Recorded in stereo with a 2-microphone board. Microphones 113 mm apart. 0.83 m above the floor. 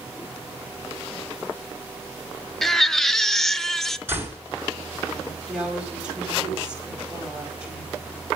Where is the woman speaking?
10° right (ahead or behind), 4.5 m.